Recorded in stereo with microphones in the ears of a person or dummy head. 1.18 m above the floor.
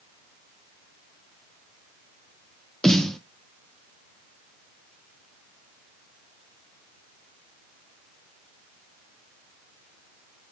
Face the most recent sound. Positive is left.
turn(degrees=5)  # may be behind; listen again after turning